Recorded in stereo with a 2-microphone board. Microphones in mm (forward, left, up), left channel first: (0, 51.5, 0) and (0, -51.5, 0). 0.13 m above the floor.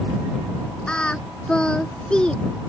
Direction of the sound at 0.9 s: 10° left (ahead or behind).